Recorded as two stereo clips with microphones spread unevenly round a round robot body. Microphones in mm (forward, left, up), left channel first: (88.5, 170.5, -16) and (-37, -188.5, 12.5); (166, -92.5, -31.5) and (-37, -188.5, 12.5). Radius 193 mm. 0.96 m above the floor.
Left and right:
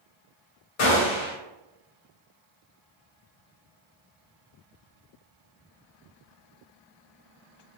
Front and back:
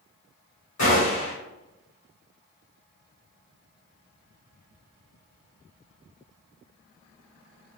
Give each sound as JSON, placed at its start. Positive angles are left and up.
{"t": 0.8, "sound": "a gunshot", "azimuth_deg": 60, "distance_m": 0.9}